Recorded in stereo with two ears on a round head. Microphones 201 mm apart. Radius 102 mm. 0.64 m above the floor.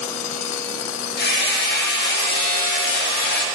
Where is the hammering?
45° left (ahead or behind), 1.3 m.